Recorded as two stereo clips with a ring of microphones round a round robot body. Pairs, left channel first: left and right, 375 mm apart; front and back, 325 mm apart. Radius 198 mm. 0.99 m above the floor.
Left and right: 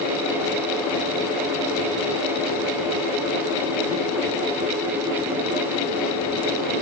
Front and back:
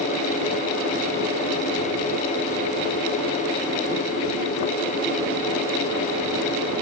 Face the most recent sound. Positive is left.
No sound to turn to.